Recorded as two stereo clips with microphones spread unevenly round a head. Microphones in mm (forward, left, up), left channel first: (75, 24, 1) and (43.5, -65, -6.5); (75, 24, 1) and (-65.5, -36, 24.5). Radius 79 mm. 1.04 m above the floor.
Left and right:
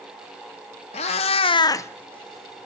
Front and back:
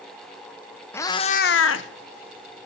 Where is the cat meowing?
100° left, 0.9 m; by 2.7 s 20° right, 1.6 m.